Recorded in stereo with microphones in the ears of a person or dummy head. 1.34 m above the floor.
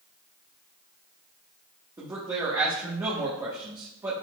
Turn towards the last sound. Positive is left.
turn(degrees=-15)  # may be behind; listen again after turning